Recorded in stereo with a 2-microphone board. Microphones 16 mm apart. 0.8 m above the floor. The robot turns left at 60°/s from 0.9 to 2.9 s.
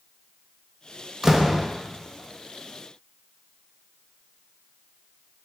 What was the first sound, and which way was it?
A door slam, 20° right (ahead or behind).